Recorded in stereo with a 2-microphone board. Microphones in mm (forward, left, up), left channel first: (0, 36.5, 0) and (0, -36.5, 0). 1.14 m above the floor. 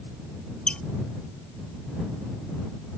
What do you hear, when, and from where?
0.7 s a squeak: 15° left (ahead or behind)